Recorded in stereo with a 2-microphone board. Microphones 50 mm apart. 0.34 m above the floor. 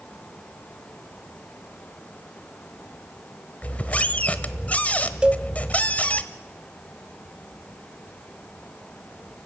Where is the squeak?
30° left (ahead or behind), 0.8 m.